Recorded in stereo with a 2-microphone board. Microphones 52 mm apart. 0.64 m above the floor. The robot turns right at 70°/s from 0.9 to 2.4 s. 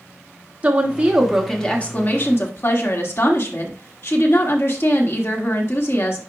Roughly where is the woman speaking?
Ahead right.